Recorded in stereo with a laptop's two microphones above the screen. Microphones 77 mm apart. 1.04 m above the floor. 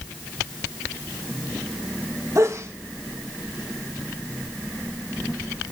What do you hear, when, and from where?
2.4 s a sneeze: 45° right (ahead or behind), 1.5 m